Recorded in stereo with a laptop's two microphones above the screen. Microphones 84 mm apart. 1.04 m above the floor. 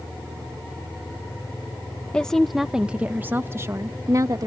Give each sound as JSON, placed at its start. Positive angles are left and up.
{"t": 2.1, "sound": "a woman speaking", "side_deg": 10}